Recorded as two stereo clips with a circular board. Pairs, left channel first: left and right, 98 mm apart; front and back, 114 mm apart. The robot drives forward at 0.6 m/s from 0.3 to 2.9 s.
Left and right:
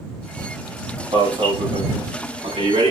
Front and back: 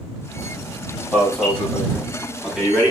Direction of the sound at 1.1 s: 85° right.